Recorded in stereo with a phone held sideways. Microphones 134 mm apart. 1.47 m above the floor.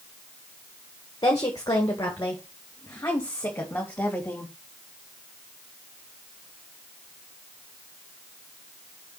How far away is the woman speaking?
About 1.8 m.